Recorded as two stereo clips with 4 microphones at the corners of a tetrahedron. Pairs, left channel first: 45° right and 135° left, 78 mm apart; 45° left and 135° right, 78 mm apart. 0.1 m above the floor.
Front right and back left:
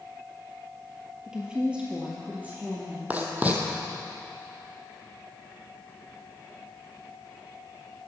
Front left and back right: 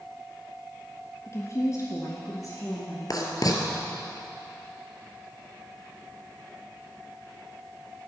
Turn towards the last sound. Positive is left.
turn(degrees=70)